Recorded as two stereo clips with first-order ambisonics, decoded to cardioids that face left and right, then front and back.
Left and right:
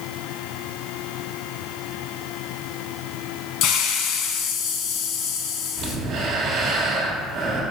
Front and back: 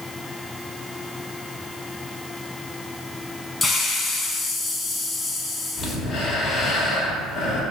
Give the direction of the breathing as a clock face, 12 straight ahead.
2 o'clock.